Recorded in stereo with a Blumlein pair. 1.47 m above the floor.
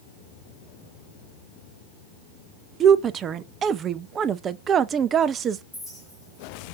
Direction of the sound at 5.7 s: 5° right.